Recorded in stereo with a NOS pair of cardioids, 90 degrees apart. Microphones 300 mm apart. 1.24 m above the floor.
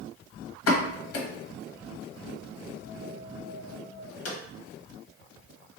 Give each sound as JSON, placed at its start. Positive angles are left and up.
{"t": 0.7, "sound": "a pop", "azimuth_deg": 50, "distance_m": 1.1}